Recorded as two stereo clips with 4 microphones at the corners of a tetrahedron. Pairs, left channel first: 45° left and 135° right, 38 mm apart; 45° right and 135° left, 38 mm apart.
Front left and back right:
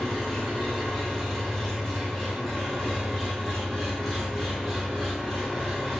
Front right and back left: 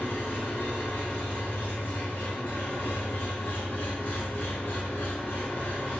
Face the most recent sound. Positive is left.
turn(degrees=-35)